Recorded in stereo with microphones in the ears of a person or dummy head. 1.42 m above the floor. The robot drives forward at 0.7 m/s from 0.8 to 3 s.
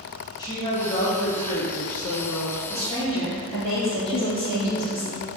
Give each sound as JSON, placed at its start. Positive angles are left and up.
{"t": 0.4, "sound": "a woman speaking", "side_deg": 25, "distance_m": 1.6}
{"t": 2.7, "sound": "a woman speaking", "side_deg": 25, "distance_m": 2.0}
{"t": 4.1, "sound": "a woman speaking", "side_deg": 35, "distance_m": 0.5}